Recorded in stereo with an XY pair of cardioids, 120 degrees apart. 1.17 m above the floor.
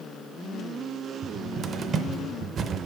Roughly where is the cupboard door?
Ahead right.